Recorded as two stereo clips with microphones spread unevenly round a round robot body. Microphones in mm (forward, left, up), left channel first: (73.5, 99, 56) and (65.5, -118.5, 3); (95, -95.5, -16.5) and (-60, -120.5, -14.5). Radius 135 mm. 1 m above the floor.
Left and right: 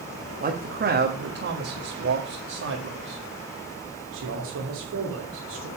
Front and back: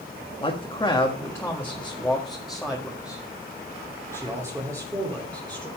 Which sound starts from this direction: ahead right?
A man speaking, at 0.4 s.